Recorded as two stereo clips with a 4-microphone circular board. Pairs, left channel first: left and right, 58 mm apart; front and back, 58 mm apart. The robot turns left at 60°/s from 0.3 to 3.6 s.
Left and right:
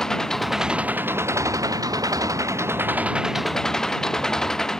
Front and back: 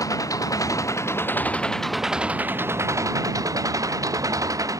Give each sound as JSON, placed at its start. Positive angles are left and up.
{"t": 0.0, "sound": "an engine running", "azimuth_deg": 10}